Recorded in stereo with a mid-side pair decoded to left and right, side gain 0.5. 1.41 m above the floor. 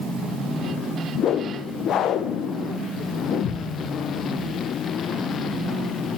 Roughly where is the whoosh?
Ahead left.